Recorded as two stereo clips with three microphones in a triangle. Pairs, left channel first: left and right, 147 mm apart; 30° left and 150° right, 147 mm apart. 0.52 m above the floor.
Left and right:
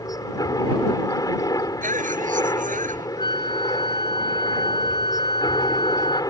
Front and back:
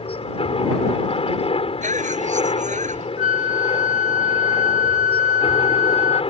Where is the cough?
120° right.